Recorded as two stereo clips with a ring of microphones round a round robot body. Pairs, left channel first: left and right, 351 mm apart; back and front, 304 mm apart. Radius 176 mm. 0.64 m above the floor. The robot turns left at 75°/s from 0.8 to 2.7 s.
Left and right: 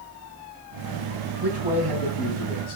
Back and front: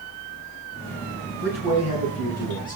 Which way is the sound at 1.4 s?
150° right.